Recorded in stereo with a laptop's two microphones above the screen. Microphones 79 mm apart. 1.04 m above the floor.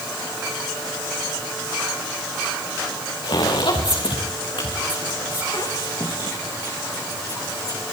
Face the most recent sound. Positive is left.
turn(degrees=45)  # may be behind; listen again after turning